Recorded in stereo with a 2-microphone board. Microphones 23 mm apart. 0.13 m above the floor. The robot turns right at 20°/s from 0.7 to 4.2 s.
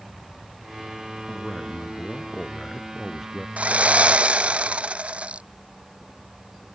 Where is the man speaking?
135° left; by 3.5 s straight behind.